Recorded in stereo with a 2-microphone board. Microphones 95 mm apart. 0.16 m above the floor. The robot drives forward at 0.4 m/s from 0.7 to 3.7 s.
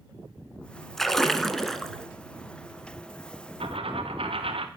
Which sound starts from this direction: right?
A dropped coin, at 3.6 s.